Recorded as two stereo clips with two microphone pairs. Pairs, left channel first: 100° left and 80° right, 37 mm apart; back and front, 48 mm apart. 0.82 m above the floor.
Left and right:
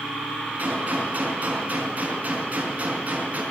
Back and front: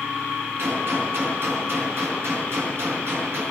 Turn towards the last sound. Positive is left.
turn(degrees=-35)